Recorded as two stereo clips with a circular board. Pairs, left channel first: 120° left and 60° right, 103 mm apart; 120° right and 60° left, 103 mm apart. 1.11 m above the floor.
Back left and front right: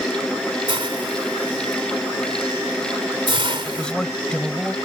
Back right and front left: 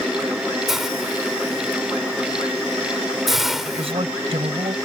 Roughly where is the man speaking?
Ahead left.